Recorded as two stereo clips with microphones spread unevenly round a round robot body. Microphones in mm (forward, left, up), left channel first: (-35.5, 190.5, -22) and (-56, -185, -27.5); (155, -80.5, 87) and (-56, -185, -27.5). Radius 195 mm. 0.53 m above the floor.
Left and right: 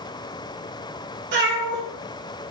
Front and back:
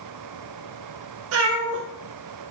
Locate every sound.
1.3 s a cat meowing: 155° right, 0.6 m